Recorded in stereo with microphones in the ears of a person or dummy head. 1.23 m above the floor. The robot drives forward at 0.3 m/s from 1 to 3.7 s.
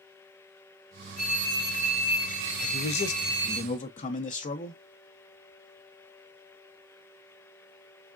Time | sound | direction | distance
1.2 | a phone ringing | 25° right (ahead or behind) | 2 m
2.6 | a man speaking | 65° left (ahead or behind) | 0.5 m